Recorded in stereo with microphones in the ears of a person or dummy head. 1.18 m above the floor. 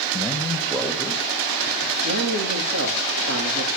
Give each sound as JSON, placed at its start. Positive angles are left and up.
{"t": 0.1, "sound": "a man speaking", "side_deg": 20, "distance_m": 1.6}
{"t": 2.0, "sound": "a man speaking", "side_deg": -70, "distance_m": 2.5}